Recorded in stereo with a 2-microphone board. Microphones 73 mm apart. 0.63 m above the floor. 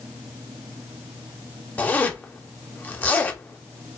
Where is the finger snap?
No finger snap in this recording.